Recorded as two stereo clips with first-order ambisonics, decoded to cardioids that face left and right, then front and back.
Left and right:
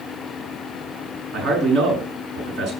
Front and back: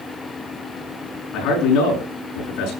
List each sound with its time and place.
1.3 s a man speaking: 35° right, 7 m